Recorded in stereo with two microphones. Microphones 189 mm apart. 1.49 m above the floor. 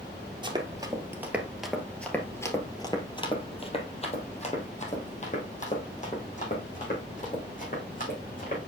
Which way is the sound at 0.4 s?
25° right (ahead or behind).